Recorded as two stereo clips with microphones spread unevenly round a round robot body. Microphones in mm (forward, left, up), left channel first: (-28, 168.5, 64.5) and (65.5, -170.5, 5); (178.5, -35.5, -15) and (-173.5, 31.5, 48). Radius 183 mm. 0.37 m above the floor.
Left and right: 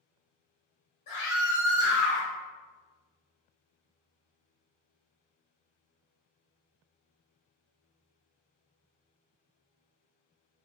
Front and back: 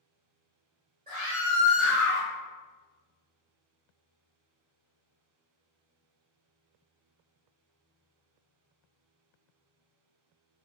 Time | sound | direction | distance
1.1 | a scream | 105° left | 1.0 m